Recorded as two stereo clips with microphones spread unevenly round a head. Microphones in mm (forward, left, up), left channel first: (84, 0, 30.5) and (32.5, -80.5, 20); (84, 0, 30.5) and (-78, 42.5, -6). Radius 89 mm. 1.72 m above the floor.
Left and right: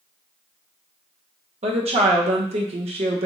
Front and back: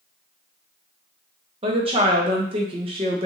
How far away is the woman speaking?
About 0.8 m.